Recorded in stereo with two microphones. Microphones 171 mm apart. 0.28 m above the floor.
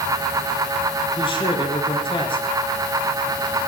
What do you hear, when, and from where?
1.2 s a man speaking: 30° left (ahead or behind), 4.5 m